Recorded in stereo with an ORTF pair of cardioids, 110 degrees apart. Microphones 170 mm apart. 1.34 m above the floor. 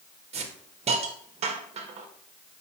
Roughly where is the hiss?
Ahead right.